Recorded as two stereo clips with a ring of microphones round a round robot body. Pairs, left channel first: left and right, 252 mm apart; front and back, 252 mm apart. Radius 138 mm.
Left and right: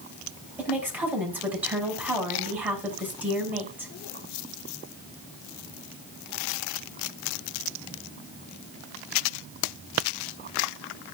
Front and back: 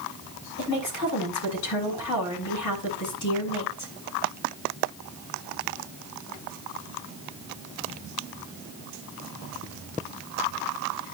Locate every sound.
0.6 s a woman speaking: 5° right, 5.5 m